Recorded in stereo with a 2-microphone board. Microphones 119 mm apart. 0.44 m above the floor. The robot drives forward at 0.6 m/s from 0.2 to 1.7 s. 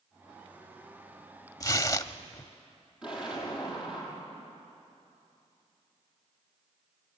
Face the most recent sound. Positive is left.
turn(degrees=-10)  # may be behind; listen again after turning